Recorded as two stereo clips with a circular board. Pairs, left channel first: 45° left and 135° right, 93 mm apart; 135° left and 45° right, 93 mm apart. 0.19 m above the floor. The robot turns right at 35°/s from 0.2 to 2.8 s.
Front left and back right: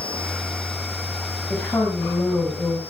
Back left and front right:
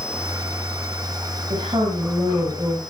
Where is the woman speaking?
25° right, 8.5 m; by 2.8 s 20° left, 8.5 m.